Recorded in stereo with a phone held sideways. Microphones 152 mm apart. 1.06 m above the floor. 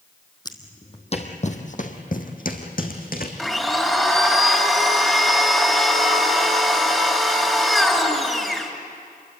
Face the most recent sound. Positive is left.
turn(degrees=0)  # may be behind; listen again after turning